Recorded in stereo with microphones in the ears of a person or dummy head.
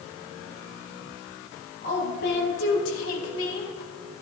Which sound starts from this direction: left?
A woman speaking, at 1.8 s.